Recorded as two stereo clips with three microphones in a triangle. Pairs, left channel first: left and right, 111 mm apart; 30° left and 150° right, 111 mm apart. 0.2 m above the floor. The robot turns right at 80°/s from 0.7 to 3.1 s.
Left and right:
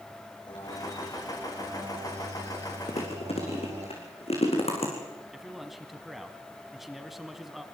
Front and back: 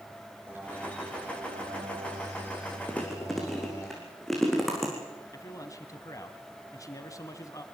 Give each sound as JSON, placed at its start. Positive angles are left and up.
{"t": 0.5, "sound": "a bird", "azimuth_deg": 140, "distance_m": 9.0}
{"t": 2.9, "sound": "chewing", "azimuth_deg": 100, "distance_m": 6.5}
{"t": 5.3, "sound": "a man speaking", "azimuth_deg": -5, "distance_m": 1.4}